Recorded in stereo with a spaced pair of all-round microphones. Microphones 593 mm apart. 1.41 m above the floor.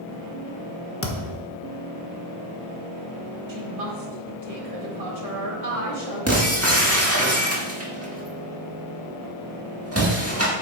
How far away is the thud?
About 1.1 m.